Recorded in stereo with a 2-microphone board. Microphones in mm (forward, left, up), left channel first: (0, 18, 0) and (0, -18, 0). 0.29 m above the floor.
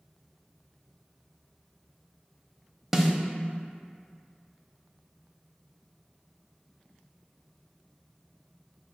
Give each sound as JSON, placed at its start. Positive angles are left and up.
{"t": 2.9, "sound": "a snare drum", "side_deg": -10, "distance_m": 0.5}